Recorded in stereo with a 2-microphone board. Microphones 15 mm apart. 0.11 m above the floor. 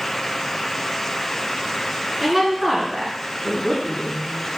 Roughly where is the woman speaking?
Centre.